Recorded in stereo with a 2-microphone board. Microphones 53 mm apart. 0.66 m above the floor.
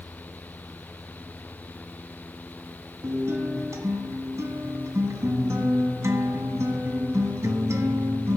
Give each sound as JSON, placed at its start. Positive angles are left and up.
{"t": 3.0, "sound": "a guitar", "side_deg": -75, "distance_m": 1.3}